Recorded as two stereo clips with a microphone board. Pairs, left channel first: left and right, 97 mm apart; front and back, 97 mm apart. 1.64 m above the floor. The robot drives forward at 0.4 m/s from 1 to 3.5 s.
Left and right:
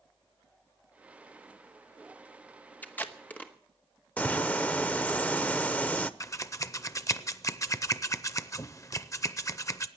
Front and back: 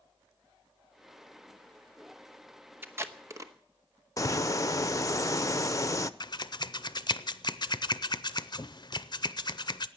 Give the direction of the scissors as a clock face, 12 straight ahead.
11 o'clock.